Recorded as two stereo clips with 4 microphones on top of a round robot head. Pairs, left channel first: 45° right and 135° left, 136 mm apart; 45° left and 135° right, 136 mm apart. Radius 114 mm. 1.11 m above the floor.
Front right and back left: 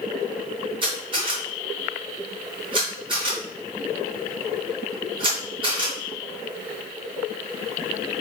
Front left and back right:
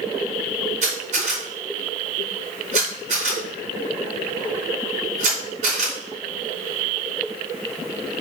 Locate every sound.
0.8 s a camera shutter: 170° right, 3.5 m